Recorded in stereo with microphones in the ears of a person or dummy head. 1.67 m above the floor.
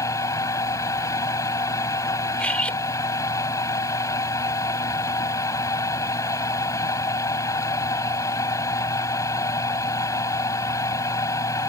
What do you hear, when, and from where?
0.0 s a fan: 20° left (ahead or behind)
2.4 s cutlery clinking: 5° left (ahead or behind)